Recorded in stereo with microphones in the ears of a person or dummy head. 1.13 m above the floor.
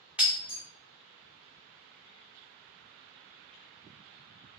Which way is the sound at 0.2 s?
10° right (ahead or behind).